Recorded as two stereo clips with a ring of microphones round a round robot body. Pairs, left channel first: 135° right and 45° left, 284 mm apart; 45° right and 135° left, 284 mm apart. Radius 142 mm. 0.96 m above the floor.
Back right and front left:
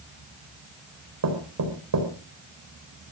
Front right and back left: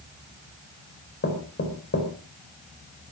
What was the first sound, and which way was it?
Knocking, 10° left.